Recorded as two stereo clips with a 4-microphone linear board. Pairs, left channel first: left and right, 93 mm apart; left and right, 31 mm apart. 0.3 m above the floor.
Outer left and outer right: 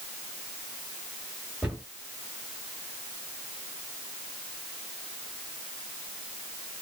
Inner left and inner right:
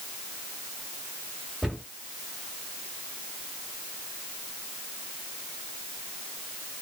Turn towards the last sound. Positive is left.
turn(degrees=-10)  # may be behind; listen again after turning